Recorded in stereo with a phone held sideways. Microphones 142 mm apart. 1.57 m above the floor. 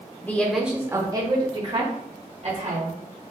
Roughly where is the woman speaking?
Centre.